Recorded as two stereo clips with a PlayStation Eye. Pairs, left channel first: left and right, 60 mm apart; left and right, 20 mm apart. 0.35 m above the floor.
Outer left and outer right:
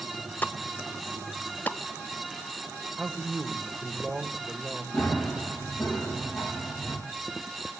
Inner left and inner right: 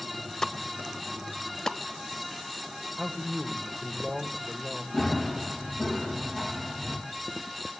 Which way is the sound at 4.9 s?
15° left (ahead or behind).